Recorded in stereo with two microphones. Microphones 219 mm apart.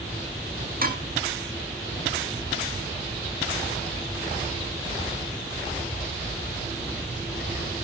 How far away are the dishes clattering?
About 1.6 m.